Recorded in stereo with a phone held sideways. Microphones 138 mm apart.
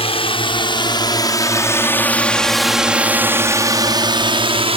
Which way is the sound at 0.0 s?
45° left (ahead or behind).